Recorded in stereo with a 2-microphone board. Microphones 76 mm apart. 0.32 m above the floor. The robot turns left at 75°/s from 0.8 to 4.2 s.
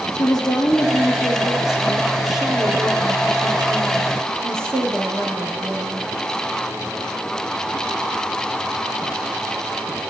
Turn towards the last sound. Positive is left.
turn(degrees=-140)